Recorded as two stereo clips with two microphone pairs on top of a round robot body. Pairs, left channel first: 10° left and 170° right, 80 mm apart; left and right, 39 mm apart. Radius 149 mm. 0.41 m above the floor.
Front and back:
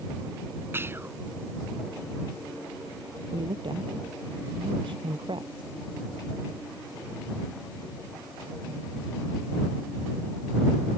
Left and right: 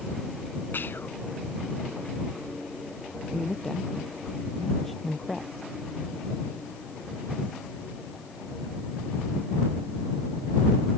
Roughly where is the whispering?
Behind left.